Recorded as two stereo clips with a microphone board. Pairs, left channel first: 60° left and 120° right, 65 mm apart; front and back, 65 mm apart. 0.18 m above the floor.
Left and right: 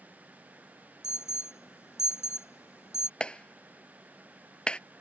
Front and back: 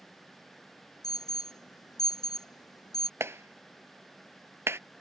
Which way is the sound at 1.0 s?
15° left.